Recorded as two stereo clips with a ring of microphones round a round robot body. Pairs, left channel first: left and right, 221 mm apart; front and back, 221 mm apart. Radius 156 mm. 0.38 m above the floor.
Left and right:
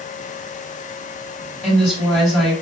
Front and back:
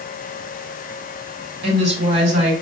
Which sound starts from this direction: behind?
A woman speaking, at 1.6 s.